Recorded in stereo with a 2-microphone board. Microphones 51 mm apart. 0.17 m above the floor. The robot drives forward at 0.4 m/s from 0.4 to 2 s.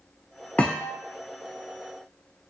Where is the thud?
30° left (ahead or behind), 0.5 m; by 1.0 s 20° left (ahead or behind), 0.7 m.